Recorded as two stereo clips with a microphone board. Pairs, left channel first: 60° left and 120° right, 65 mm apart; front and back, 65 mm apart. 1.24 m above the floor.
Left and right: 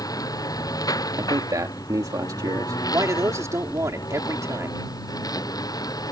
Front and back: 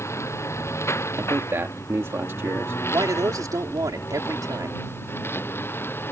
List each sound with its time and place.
0.0 s a lawn mower: 45° left; by 6.1 s 55° left
1.2 s a man speaking: 135° right
2.9 s a man speaking: 155° right